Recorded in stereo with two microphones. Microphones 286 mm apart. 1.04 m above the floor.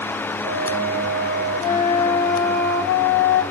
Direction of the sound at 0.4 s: 30° right (ahead or behind).